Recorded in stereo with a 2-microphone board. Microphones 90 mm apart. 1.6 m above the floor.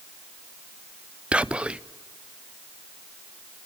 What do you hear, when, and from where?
1.3 s whispering: 10° right (ahead or behind), 0.6 m